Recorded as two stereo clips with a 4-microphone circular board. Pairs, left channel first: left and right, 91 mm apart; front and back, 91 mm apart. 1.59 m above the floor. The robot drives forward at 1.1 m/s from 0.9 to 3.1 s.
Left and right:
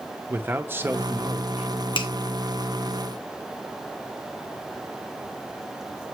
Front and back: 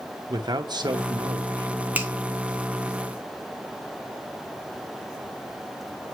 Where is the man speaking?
155° right, 0.9 m; by 1.7 s 165° right, 1.8 m.